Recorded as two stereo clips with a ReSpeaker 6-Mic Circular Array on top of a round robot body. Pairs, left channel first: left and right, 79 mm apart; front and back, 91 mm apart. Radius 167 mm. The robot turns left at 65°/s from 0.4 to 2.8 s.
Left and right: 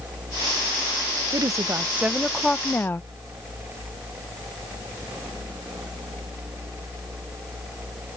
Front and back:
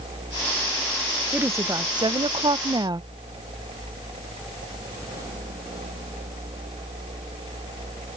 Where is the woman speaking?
115° right; by 3.0 s 150° left.